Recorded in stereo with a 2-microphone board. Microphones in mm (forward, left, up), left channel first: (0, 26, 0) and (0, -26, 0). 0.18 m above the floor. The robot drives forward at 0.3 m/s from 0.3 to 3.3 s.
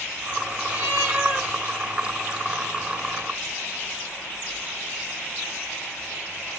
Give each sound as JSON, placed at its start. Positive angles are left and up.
{"t": 0.7, "sound": "a cat meowing", "side_deg": -25, "distance_m": 1.5}